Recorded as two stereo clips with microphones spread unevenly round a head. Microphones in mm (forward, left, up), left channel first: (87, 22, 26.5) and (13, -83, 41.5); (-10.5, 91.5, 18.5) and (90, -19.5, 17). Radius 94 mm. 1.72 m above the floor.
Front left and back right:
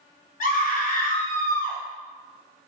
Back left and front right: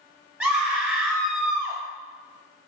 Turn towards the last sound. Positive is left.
turn(degrees=30)